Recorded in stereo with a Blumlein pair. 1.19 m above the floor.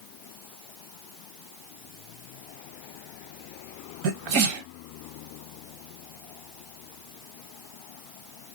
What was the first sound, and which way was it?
A sneeze, 40° right.